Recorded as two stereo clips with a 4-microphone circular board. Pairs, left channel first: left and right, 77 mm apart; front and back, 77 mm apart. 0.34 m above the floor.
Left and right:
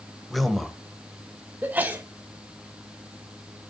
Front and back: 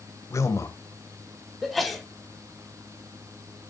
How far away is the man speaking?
About 1.1 m.